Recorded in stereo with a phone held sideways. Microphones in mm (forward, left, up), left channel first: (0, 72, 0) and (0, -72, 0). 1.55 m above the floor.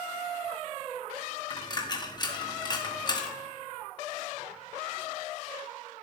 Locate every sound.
1.5 s a dropped coin: 30° left (ahead or behind), 1.1 m